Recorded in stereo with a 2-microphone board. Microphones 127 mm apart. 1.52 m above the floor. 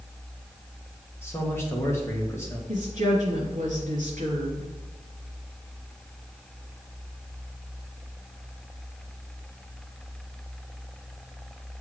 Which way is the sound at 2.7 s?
70° right (ahead or behind).